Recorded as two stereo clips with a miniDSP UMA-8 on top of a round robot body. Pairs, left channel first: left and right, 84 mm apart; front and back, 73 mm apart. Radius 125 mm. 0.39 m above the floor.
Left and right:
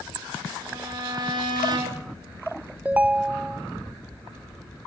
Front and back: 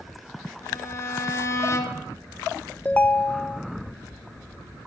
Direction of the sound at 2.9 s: 40° right.